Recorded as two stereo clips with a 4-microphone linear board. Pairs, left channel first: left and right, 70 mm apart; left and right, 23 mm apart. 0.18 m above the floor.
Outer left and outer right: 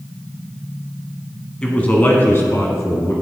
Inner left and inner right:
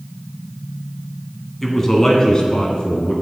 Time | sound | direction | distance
1.6 | a man speaking | 15° left (ahead or behind) | 1.2 m